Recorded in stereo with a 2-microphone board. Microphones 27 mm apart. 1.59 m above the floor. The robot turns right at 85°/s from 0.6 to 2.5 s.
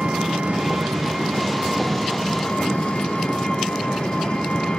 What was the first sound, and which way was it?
An engine running, 125° right.